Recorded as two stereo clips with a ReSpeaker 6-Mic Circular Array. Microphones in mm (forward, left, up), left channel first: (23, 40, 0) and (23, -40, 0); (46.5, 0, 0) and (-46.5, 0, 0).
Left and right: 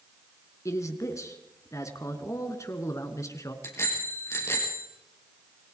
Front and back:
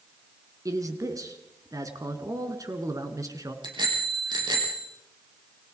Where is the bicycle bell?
145° left, 5.5 m.